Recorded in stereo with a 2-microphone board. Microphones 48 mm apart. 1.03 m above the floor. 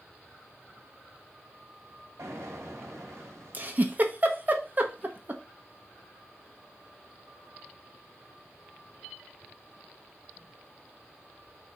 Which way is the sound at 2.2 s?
85° right.